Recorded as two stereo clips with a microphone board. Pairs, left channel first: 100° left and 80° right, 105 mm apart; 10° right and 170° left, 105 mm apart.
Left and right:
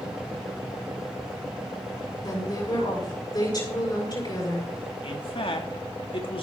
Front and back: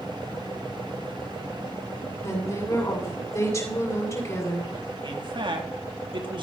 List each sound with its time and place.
2.2 s a woman speaking: 55° left, 6.5 m
5.0 s a man speaking: 130° left, 2 m